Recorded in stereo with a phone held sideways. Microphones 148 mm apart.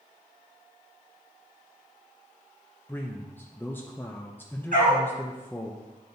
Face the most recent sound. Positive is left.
turn(degrees=-70)  # may be behind; listen again after turning